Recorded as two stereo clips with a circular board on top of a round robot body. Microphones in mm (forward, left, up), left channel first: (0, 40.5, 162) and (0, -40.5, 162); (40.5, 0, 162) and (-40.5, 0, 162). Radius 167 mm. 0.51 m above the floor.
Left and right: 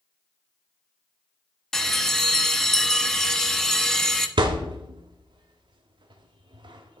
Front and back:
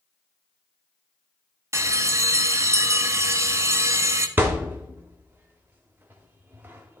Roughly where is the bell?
Behind.